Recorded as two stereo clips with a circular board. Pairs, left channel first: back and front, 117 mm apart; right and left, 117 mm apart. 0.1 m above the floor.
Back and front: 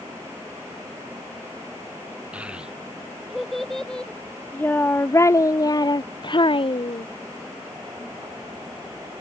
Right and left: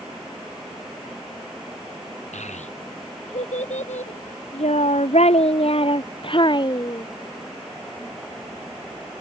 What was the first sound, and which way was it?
A child speaking, 80° right.